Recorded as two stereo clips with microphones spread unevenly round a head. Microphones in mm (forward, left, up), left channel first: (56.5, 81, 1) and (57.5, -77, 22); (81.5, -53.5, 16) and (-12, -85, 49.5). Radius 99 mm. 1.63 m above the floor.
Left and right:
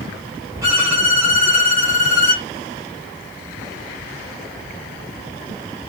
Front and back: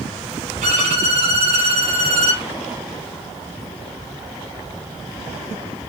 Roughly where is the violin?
Behind.